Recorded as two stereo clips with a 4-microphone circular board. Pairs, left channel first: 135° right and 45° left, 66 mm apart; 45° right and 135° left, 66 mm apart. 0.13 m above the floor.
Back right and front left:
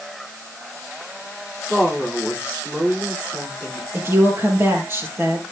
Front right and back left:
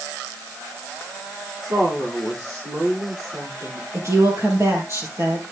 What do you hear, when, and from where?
1.6 s a woman speaking: 125° left, 9.5 m
3.9 s a woman speaking: 95° left, 3.5 m